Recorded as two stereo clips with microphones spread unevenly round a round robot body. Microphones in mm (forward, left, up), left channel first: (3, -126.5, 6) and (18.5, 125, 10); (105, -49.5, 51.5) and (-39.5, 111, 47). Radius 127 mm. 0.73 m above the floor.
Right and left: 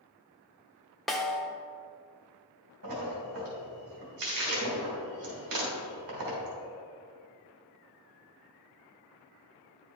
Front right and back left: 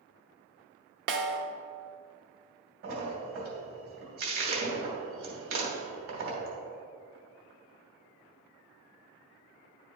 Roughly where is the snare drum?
Behind.